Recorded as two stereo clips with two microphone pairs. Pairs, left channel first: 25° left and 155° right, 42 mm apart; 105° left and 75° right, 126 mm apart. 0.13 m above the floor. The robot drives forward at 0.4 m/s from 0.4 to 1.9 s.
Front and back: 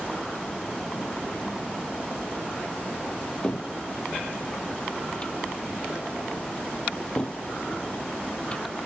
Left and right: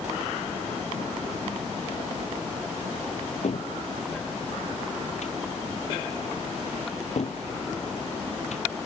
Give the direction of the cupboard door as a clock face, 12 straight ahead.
9 o'clock.